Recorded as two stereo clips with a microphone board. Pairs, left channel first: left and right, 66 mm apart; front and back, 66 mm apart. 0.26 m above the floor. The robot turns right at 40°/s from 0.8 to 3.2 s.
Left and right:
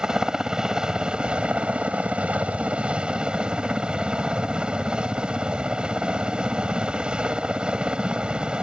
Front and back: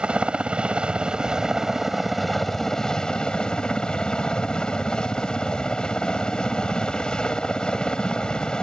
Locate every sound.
0.0 s a helicopter: 145° right; by 8.6 s 50° right